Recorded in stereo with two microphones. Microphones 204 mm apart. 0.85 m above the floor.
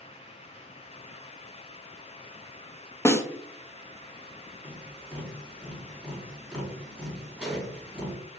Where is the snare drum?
15° left (ahead or behind), 0.6 m.